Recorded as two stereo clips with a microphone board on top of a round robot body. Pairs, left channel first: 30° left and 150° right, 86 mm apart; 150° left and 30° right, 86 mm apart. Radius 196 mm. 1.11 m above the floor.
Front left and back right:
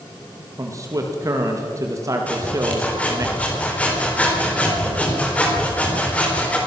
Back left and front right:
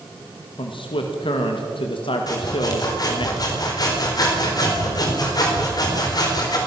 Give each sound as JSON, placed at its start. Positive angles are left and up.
{"t": 0.6, "sound": "a man speaking", "azimuth_deg": 160, "distance_m": 2.0}
{"t": 2.3, "sound": "sawing", "azimuth_deg": 105, "distance_m": 4.0}